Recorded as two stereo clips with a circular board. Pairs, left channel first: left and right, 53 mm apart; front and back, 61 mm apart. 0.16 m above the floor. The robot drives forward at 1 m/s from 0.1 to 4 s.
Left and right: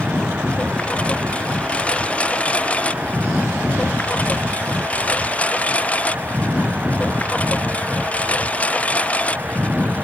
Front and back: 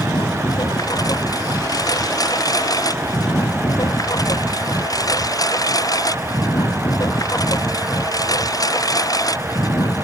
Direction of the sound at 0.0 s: 20° left.